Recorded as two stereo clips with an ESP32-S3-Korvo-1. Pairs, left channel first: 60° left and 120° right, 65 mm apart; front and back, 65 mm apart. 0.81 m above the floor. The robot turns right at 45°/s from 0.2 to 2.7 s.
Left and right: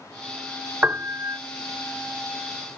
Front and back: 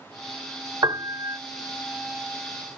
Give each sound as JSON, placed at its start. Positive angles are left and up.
{"t": 0.8, "sound": "a piano", "azimuth_deg": 180}